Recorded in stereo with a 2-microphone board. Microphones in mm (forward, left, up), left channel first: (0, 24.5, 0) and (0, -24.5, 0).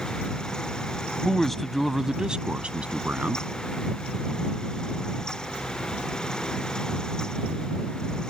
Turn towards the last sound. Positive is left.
turn(degrees=-35)  # may be behind; listen again after turning